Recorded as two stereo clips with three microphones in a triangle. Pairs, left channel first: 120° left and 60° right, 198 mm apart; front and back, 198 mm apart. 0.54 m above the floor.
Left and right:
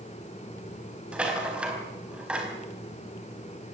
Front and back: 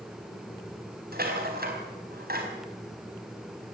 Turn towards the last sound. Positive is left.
turn(degrees=-145)